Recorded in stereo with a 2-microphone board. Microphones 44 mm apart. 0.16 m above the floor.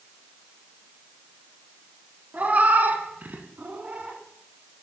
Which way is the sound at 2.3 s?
35° right (ahead or behind).